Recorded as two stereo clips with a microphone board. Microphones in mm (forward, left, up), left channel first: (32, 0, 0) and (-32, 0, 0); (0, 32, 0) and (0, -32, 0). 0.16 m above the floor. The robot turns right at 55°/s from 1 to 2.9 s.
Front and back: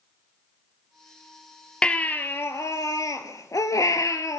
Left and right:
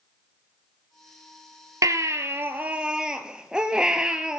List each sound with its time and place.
1.8 s a baby crying: 75° right, 1.0 m; by 4.4 s 15° right, 1.0 m